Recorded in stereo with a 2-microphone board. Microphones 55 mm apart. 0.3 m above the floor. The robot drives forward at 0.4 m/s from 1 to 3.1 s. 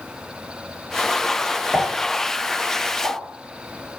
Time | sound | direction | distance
1.7 | a pop | 10° right (ahead or behind) | 0.8 m